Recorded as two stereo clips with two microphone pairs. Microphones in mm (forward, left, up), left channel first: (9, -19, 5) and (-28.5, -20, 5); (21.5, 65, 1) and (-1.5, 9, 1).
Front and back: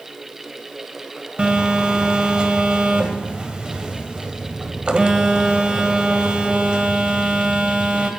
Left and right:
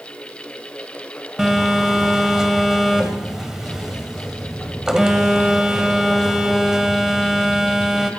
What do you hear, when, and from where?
1.4 s a phone buzzing: 175° left, 1.6 m